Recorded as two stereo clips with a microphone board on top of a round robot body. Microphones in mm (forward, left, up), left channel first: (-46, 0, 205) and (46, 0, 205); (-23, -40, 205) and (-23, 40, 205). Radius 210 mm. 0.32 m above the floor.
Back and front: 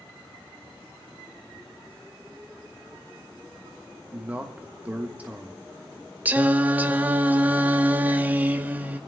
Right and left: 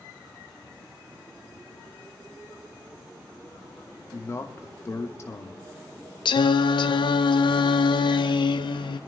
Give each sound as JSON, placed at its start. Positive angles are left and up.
{"t": 4.1, "sound": "a man speaking", "azimuth_deg": -65, "distance_m": 1.4}
{"t": 6.2, "sound": "singing", "azimuth_deg": -75, "distance_m": 0.7}